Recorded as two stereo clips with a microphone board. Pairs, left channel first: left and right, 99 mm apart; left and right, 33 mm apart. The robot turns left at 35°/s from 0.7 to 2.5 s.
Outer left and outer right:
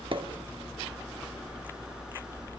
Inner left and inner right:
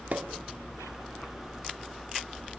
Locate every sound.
0.1 s a pop: 55° right (ahead or behind), 0.7 m